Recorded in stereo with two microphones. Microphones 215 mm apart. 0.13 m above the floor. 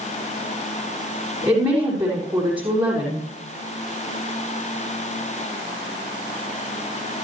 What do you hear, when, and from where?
1.4 s a woman speaking: 25° right (ahead or behind), 6 m